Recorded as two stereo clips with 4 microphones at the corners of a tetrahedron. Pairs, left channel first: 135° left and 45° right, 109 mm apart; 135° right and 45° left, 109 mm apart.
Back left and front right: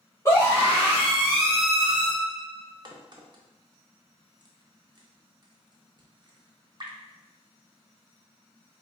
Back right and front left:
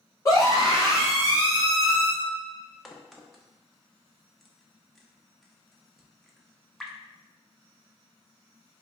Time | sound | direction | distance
0.2 | a scream | 175° right | 1.5 m
2.9 | a crack | 45° right | 0.5 m